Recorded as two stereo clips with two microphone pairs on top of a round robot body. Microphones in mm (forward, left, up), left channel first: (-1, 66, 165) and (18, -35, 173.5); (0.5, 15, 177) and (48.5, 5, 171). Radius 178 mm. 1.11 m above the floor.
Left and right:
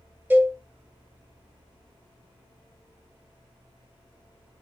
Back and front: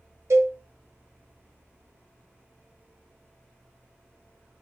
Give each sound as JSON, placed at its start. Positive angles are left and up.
{"t": 0.3, "sound": "a cowbell", "azimuth_deg": -5, "distance_m": 1.0}